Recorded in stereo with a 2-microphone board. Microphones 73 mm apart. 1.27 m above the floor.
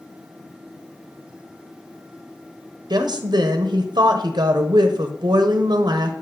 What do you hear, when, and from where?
2.9 s a woman speaking: 70° right (ahead or behind), 0.7 m